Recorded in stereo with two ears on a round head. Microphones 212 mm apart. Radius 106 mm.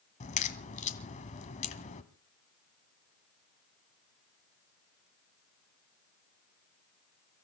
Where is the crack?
30° left (ahead or behind), 1.4 m.